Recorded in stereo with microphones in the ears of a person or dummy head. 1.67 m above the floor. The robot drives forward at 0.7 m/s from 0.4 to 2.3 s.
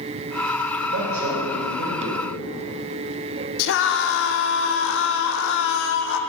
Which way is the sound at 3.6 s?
65° left (ahead or behind).